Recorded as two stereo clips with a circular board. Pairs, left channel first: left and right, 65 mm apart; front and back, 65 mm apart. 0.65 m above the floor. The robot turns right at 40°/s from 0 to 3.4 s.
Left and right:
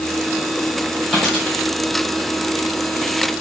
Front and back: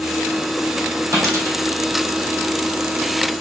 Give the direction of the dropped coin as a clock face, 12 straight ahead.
6 o'clock.